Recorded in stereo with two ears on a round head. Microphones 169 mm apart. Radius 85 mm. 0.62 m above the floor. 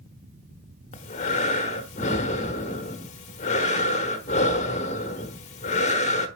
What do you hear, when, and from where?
0.9 s breathing: 40° left (ahead or behind), 1.0 m